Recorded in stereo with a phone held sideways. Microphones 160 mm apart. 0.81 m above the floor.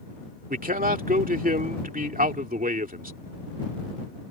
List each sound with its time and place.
0.5 s a man speaking: 60° right (ahead or behind)